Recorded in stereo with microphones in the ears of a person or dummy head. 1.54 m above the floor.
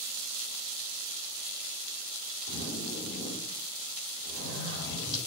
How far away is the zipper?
About 3 m.